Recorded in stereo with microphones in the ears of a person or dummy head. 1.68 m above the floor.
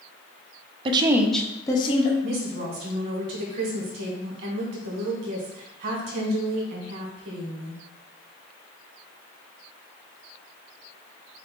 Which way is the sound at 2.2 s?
45° right (ahead or behind).